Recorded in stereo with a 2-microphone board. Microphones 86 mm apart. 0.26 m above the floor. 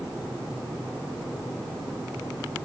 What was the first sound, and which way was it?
Only background noise.